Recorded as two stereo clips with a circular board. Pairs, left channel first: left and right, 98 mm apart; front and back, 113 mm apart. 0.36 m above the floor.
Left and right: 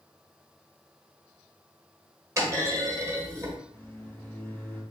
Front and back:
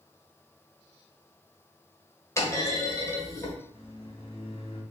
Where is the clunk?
50° right, 1.2 m.